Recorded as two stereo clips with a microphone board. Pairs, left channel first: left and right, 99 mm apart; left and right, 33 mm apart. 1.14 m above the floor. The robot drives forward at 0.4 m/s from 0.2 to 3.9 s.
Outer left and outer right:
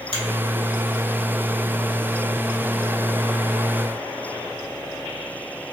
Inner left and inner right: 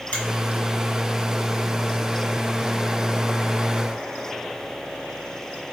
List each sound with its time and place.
0.1 s a finger snap: 65° left (ahead or behind), 1.2 m